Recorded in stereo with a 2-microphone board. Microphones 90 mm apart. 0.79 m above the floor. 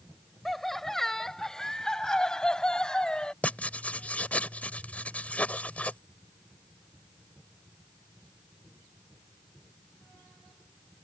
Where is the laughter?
Centre (ahead or behind); by 3.3 s 10° left (ahead or behind).